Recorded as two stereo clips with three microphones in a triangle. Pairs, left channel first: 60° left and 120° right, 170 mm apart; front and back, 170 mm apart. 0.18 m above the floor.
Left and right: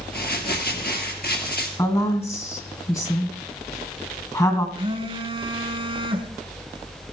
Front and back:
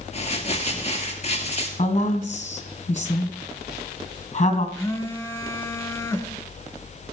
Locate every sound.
0.1 s crumpling: 50° left, 2 m
1.8 s a woman speaking: 5° left, 2.0 m
4.8 s a phone buzzing: 70° right, 1.2 m